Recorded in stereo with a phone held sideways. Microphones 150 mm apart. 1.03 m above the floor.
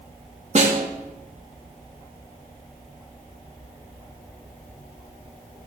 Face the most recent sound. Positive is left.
turn(degrees=-50)  # may be behind; listen again after turning